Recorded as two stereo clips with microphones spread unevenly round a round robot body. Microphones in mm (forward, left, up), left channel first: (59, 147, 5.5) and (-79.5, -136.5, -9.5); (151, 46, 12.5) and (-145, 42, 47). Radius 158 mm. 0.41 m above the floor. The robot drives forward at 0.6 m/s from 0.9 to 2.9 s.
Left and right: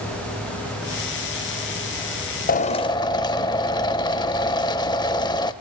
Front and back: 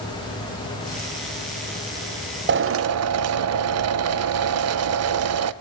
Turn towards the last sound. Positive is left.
turn(degrees=140)